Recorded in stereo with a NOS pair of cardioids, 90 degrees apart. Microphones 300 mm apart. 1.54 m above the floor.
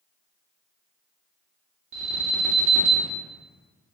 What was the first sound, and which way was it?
An alarm, 45° right.